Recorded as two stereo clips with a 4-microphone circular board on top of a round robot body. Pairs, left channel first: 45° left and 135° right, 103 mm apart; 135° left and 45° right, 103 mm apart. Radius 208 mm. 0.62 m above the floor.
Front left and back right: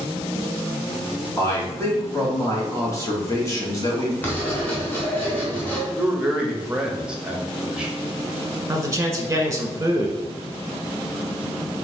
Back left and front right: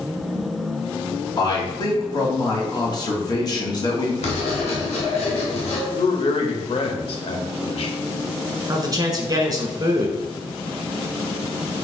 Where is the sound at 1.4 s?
100° left, 1.9 m.